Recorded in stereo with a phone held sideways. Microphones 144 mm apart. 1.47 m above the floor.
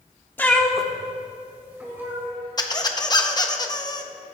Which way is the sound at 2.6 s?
30° left (ahead or behind).